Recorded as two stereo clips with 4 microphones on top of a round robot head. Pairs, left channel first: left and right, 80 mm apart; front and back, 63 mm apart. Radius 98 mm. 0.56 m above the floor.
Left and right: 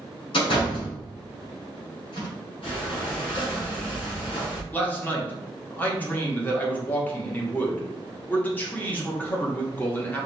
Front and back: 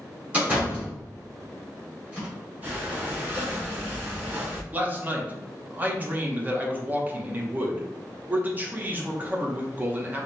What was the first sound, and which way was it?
A door slam, 115° left.